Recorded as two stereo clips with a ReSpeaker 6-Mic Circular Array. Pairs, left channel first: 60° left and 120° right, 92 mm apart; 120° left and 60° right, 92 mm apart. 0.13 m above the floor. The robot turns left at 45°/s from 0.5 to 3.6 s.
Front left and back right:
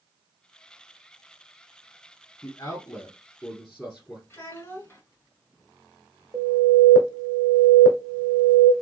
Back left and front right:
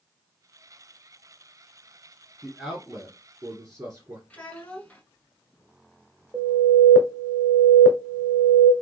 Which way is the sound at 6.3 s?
110° right.